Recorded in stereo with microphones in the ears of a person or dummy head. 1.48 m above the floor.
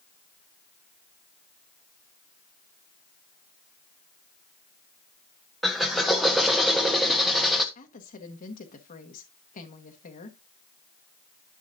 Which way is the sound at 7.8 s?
40° left (ahead or behind).